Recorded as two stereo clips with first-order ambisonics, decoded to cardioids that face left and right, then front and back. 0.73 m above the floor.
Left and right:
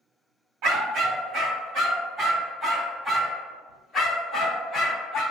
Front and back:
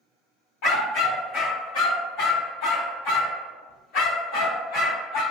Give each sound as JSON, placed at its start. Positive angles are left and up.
{"t": 0.6, "sound": "a dog barking", "azimuth_deg": -45, "distance_m": 2.0}